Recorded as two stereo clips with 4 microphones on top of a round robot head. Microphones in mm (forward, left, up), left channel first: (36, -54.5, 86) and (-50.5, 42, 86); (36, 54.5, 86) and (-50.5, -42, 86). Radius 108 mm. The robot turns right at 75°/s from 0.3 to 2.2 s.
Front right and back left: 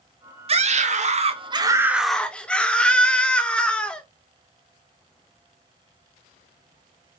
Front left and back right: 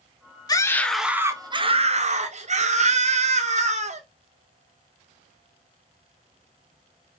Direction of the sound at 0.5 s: 105° left.